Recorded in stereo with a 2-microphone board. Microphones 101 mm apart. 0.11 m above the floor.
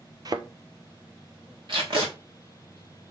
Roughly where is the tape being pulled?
Right.